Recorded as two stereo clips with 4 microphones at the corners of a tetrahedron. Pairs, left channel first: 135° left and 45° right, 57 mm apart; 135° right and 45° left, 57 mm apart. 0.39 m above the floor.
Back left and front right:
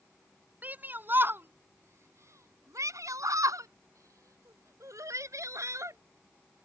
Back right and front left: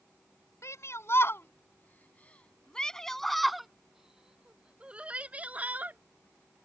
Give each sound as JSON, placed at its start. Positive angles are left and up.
{"t": 0.6, "sound": "a shout", "azimuth_deg": -105}